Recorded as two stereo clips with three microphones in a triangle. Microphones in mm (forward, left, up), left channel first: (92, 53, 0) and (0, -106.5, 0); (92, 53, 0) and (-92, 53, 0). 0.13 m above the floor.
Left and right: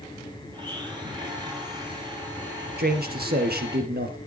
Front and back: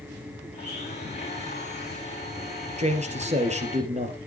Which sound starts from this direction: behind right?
A man speaking, at 2.8 s.